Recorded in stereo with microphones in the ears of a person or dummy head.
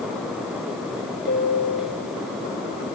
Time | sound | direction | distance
1.3 | a piano | 45° left (ahead or behind) | 3.5 m